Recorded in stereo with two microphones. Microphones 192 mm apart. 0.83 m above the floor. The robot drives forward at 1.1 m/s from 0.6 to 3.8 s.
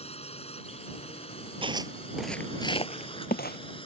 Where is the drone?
30° left (ahead or behind); by 3.9 s 25° left (ahead or behind).